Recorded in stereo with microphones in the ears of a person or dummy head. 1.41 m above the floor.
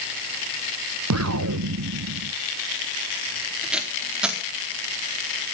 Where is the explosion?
85° right, 1.1 m.